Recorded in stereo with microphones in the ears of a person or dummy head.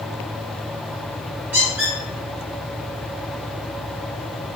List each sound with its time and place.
1.5 s a squeak: 5° right (ahead or behind), 1.3 m